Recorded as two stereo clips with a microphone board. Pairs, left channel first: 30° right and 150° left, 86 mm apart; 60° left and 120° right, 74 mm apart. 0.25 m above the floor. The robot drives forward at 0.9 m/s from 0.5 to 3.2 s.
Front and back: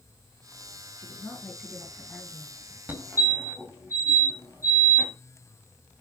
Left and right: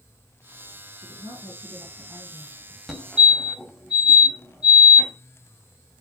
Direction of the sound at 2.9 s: 160° left.